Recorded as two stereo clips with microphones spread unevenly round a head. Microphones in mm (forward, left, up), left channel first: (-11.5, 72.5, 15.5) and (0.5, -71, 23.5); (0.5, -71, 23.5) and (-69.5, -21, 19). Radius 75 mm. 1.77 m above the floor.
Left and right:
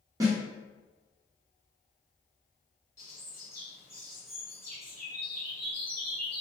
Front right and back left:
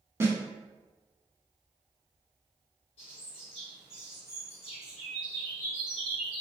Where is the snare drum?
155° right, 1.0 m.